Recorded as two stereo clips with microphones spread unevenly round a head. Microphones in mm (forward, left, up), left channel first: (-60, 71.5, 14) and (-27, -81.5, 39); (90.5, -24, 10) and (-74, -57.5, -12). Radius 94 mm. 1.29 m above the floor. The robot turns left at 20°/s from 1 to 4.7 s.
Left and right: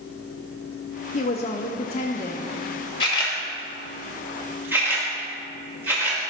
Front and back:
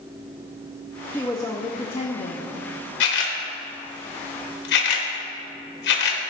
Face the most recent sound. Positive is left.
turn(degrees=0)